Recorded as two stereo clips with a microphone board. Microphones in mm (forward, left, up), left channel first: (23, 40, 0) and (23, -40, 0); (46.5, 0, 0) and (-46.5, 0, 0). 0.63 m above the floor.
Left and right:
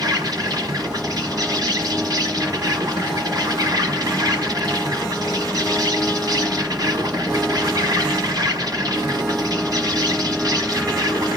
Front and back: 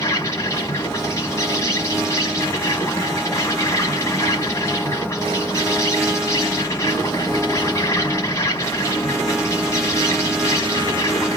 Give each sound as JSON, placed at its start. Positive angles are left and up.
{"t": 0.0, "sound": "an insect", "azimuth_deg": -55, "distance_m": 1.2}